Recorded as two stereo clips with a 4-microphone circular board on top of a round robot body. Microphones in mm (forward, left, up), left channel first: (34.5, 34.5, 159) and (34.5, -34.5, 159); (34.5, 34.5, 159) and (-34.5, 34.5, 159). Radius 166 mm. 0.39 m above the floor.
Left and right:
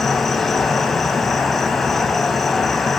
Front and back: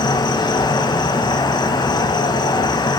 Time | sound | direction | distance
0.0 | an insect | 5° left | 2 m